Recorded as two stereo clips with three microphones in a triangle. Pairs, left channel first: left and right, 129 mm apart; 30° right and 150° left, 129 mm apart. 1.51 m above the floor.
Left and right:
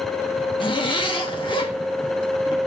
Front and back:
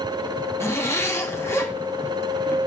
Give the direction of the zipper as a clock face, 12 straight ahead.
11 o'clock.